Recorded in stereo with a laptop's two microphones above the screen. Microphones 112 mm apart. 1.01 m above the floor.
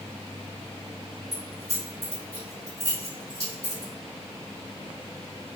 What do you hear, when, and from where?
1.3 s keys jangling: 70° right (ahead or behind), 1.9 m